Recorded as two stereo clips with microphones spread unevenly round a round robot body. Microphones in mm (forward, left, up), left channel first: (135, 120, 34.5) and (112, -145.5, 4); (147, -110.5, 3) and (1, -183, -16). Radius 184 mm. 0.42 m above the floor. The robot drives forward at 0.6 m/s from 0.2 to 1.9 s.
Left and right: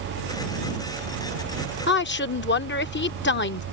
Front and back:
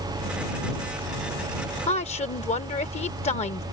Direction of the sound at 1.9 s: 60° left.